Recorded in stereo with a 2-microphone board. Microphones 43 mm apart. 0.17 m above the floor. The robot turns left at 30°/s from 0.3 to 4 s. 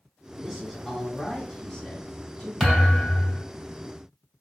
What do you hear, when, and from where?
0.4 s a man speaking: 5° right (ahead or behind), 1.8 m; by 2.5 s 20° left (ahead or behind), 1.8 m
2.6 s a thud: 10° left (ahead or behind), 1.8 m; by 3.4 s 35° left (ahead or behind), 1.8 m